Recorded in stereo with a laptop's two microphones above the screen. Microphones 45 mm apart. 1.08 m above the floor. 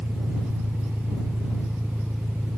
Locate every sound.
0.0 s an engine running: 55° right (ahead or behind)